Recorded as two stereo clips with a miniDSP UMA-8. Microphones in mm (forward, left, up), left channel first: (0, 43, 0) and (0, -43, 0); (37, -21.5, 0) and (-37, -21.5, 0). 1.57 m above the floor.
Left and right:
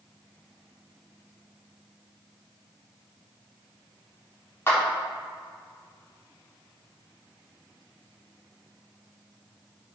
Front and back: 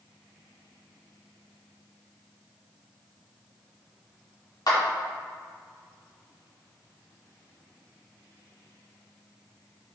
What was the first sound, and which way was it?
A clap, 25° left.